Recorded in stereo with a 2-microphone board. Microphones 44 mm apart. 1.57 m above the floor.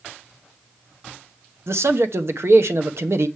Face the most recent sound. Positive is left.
turn(degrees=-65)  # may be behind; listen again after turning